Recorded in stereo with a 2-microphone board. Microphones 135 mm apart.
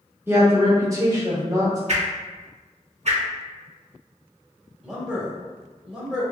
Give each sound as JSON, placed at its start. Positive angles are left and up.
{"t": 0.3, "sound": "a woman speaking", "side_deg": -20, "distance_m": 0.9}
{"t": 1.9, "sound": "a whoosh", "side_deg": -60, "distance_m": 0.7}
{"t": 4.8, "sound": "a man speaking", "side_deg": -5, "distance_m": 1.4}